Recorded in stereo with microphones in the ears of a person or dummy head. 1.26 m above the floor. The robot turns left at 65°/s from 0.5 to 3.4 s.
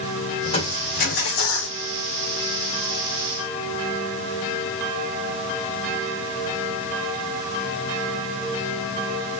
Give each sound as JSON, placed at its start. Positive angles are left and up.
{"t": 0.4, "sound": "crushing", "azimuth_deg": 155, "distance_m": 3.5}